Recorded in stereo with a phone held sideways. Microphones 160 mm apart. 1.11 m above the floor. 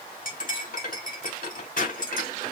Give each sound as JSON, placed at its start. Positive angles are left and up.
{"t": 0.2, "sound": "cutlery clinking", "side_deg": 60, "distance_m": 2.5}